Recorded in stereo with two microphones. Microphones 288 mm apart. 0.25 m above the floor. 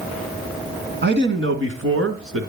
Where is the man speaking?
40° right (ahead or behind), 2 m; by 2.5 s 55° right (ahead or behind), 2.5 m.